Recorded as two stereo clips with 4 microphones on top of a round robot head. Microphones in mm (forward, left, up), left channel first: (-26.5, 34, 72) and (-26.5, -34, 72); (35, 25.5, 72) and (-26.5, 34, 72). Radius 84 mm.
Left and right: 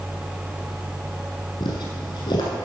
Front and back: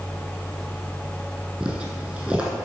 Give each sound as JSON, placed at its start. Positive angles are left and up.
{"t": 1.6, "sound": "footsteps", "azimuth_deg": 95, "distance_m": 1.7}